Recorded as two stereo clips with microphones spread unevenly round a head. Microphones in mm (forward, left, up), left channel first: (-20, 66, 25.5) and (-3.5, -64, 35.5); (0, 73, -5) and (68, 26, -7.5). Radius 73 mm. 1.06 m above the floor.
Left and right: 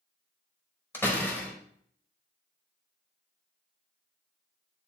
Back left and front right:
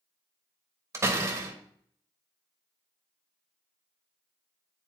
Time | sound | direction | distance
0.9 | a door slam | 20° left | 1.2 m